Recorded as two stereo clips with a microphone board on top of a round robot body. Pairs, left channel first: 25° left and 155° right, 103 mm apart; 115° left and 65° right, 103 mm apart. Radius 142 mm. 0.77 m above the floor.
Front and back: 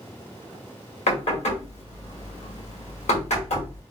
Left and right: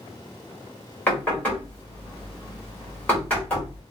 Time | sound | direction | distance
1.1 | knocking | 35° left | 1.5 m